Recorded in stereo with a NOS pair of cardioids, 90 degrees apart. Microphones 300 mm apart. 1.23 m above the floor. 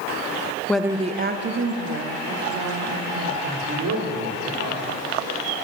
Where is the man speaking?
60° right, 3 m.